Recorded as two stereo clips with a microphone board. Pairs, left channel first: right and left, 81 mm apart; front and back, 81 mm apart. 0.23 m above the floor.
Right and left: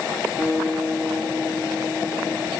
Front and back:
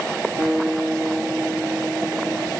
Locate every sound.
0.4 s a guitar: 160° left, 1.3 m